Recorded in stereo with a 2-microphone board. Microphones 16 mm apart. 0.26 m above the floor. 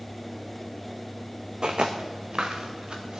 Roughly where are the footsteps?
Right.